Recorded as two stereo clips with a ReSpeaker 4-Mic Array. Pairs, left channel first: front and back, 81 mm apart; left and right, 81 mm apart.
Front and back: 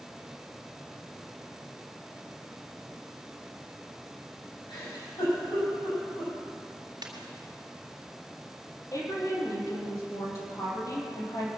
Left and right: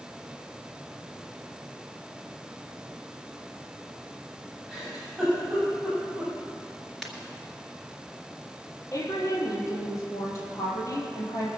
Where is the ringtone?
Straight behind, 2.5 m.